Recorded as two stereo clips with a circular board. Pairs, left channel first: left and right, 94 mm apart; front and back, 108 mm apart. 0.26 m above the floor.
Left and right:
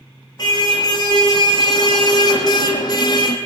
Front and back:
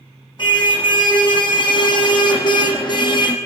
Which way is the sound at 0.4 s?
45° left.